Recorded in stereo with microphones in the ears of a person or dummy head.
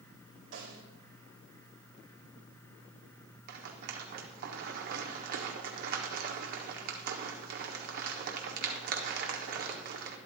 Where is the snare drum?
80° right, 3.5 m.